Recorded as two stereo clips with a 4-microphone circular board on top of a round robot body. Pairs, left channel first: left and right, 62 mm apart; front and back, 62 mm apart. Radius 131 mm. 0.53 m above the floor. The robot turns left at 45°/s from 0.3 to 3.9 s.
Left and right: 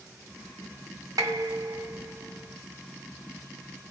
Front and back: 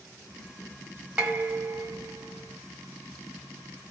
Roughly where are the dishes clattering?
Right.